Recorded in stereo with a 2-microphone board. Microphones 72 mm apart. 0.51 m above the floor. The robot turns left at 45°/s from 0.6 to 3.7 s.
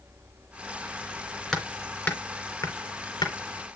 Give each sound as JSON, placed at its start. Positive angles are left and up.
{"t": 1.5, "sound": "hammering", "side_deg": 5, "distance_m": 2.5}